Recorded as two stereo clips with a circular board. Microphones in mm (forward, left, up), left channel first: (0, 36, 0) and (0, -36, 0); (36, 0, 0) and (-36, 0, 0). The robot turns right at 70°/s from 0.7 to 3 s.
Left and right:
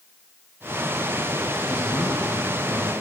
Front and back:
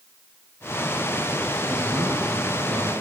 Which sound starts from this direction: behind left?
A man speaking, at 1.7 s.